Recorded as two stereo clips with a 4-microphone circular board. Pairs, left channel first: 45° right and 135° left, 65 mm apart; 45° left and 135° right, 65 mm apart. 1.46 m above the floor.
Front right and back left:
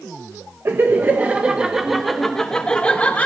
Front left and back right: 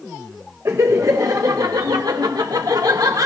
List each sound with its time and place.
0.7 s laughter: 175° right, 1.1 m; by 3.3 s 110° right, 1.5 m